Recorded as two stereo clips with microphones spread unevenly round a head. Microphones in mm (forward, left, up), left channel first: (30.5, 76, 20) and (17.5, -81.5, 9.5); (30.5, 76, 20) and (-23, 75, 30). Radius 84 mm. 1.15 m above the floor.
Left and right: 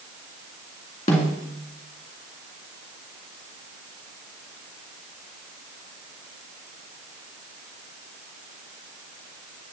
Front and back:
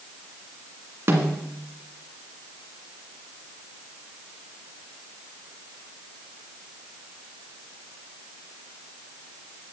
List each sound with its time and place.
1.1 s a snare drum: 145° left, 2.0 m